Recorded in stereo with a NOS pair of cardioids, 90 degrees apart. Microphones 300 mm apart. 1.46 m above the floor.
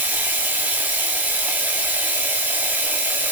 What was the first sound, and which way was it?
Running water, 5° right.